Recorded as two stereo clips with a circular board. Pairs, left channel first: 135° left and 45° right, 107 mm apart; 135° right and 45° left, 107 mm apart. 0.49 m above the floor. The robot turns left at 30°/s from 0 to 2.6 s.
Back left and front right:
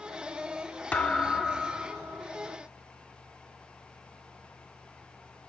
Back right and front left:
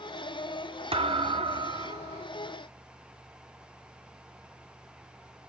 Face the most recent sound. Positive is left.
turn(degrees=10)